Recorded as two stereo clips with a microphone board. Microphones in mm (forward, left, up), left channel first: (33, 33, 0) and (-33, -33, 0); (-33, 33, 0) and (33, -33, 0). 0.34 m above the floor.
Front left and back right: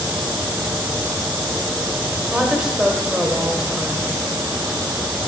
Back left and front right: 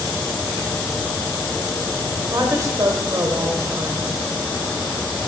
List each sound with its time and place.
2.3 s a woman speaking: 60° right, 1.1 m